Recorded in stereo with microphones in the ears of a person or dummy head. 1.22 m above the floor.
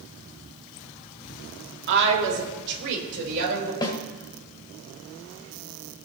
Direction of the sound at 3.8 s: 25° left (ahead or behind).